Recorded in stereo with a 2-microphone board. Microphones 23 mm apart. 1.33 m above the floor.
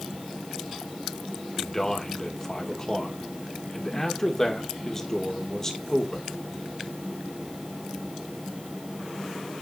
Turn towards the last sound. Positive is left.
turn(degrees=20)  # may be behind; listen again after turning